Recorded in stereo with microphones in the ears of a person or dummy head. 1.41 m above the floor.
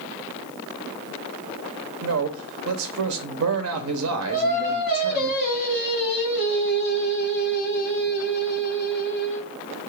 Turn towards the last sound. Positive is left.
turn(degrees=50)  # may be behind; listen again after turning